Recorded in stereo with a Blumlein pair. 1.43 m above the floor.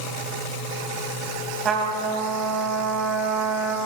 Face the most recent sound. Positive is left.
turn(degrees=-25)